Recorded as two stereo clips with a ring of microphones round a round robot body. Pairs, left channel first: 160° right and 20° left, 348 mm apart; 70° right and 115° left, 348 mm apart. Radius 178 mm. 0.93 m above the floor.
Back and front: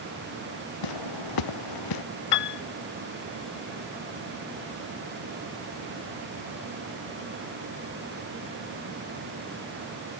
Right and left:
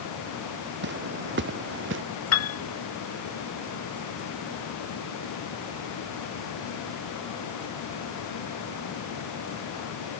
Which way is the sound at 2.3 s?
115° right.